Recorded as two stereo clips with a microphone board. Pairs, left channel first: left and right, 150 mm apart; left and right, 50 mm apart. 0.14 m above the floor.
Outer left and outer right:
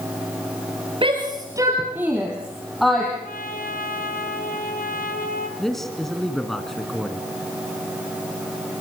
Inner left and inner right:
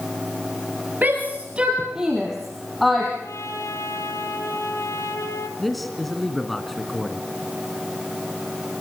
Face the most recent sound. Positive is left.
turn(degrees=0)  # may be behind; listen again after turning